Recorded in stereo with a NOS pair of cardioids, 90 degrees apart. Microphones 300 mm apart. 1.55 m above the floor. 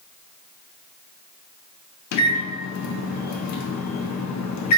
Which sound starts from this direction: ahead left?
A microwave, at 2.1 s.